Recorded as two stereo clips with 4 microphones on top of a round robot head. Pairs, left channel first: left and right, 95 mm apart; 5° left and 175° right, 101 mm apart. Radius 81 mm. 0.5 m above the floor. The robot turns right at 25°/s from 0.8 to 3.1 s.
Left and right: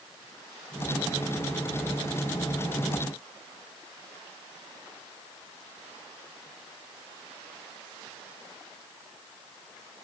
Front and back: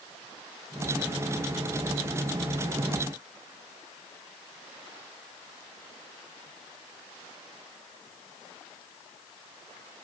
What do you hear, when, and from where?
Only background noise.